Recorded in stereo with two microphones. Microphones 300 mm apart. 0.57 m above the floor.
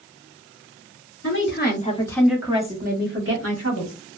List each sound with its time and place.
1.2 s a woman speaking: 45° left (ahead or behind), 0.9 m; by 4.0 s 60° right (ahead or behind), 1.3 m